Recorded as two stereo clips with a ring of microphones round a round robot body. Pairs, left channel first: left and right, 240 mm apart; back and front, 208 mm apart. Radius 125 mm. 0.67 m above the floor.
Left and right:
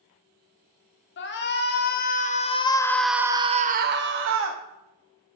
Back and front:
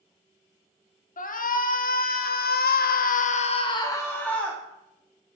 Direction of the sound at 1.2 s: 130° left.